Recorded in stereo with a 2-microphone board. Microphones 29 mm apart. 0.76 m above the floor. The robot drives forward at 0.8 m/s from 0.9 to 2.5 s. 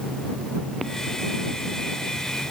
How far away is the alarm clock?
I don't hear an alarm clock.